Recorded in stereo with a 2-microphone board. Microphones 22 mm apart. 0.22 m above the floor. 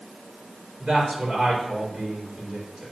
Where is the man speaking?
40° right (ahead or behind), 3.5 m.